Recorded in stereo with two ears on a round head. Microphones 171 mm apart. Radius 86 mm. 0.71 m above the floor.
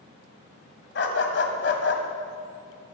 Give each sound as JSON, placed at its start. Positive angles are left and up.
{"t": 0.9, "sound": "a dog barking", "side_deg": 60, "distance_m": 1.6}